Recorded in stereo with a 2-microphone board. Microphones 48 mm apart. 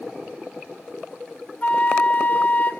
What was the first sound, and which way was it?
A flute, 35° left (ahead or behind).